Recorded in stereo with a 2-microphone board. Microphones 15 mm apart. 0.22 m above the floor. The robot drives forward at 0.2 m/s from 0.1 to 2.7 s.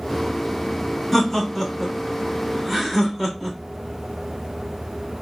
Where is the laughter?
5° left (ahead or behind), 1.2 m.